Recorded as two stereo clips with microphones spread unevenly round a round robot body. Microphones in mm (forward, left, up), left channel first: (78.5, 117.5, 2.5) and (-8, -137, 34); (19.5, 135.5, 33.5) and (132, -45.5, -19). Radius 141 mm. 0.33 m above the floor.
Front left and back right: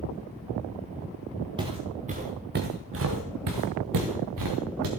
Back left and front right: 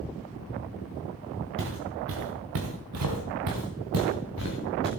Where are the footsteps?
35° right, 2.5 m; by 4.9 s 115° right, 3 m.